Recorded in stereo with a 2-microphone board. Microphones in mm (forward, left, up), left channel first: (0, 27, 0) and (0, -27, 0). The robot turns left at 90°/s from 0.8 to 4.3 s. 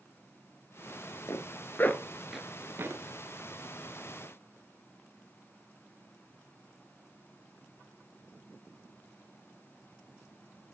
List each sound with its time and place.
1.3 s a zipper: 70° left (ahead or behind), 1.5 m; by 3.0 s 60° right (ahead or behind), 1.5 m